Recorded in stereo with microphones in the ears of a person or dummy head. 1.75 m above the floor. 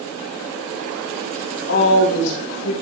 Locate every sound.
1.7 s a woman speaking: 75° left (ahead or behind), 4 m